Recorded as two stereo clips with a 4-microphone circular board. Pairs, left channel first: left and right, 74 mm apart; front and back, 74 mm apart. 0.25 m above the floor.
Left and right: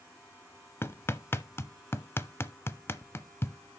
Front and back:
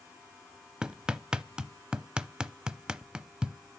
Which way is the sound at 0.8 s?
110° left.